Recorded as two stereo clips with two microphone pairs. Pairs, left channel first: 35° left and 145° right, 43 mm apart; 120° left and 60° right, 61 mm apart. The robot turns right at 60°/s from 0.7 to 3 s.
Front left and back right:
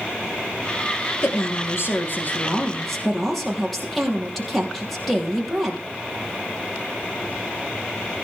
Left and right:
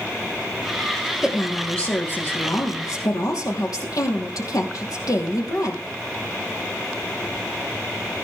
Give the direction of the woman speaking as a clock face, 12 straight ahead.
11 o'clock.